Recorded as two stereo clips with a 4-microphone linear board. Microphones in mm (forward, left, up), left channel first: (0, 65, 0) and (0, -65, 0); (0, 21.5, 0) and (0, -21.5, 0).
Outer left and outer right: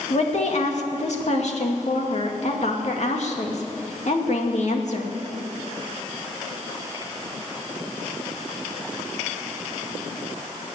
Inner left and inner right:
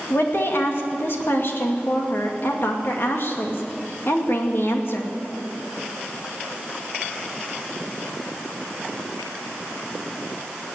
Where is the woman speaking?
60° left (ahead or behind), 2.5 m.